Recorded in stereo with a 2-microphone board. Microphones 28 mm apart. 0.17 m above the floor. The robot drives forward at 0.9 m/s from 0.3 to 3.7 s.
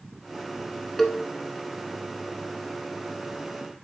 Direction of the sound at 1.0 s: 5° left (ahead or behind).